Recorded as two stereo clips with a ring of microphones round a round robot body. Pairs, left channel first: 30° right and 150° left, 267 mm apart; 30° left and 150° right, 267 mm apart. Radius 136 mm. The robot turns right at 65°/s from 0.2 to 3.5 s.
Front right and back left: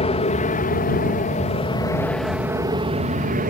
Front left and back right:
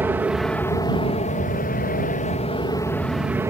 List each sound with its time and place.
0.0 s an aircraft: 75° right; by 3.5 s 140° left